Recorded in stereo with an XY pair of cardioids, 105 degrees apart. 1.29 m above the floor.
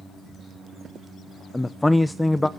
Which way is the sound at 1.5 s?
10° left.